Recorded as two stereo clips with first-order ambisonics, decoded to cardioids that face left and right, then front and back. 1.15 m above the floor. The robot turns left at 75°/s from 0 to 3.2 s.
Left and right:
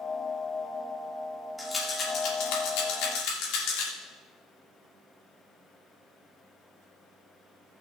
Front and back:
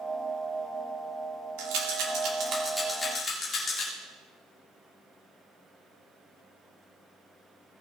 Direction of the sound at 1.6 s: 175° right.